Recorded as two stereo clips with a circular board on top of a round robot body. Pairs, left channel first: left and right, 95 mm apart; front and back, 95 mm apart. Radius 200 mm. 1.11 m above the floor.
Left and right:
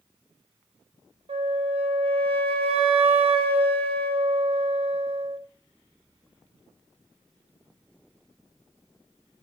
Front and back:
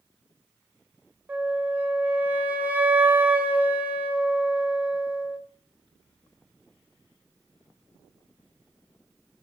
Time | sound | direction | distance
1.3 | a flute | 105° right | 1.2 m